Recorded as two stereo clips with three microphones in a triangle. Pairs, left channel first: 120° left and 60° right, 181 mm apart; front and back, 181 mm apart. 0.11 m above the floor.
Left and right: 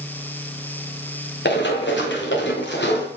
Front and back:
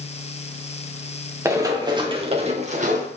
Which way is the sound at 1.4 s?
105° left.